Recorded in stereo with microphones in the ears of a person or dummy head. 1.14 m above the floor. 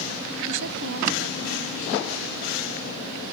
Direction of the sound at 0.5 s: 80° right.